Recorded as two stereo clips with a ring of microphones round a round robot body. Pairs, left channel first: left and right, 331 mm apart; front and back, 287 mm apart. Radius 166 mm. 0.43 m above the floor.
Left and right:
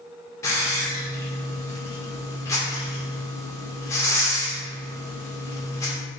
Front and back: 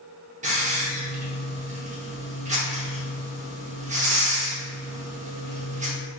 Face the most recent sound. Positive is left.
turn(degrees=160)